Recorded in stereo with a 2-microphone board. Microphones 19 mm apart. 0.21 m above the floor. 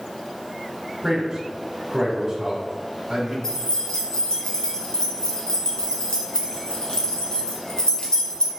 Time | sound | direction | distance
1.0 | a man speaking | 35° right (ahead or behind) | 1.2 m
3.4 | keys jangling | 50° left (ahead or behind) | 1.4 m